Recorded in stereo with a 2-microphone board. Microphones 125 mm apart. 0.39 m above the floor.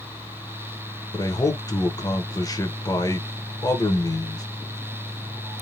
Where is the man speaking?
30° left (ahead or behind), 1.0 m.